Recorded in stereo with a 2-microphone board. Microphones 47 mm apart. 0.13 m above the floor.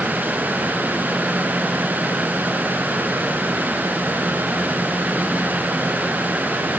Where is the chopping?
No chopping in this recording.